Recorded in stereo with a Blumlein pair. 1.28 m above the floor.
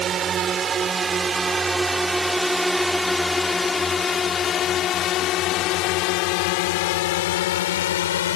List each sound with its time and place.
0.0 s a drone: 25° right; by 8.4 s 60° left